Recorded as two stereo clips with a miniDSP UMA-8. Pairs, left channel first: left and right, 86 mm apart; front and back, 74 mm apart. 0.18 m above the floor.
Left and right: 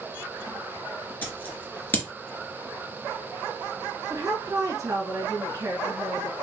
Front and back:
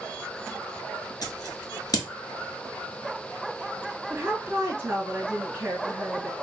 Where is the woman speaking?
125° right, 2.0 m.